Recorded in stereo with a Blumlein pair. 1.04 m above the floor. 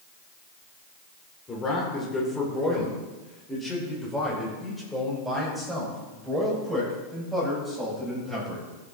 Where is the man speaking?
20° left, 4.5 m; by 8.7 s 5° right, 7 m.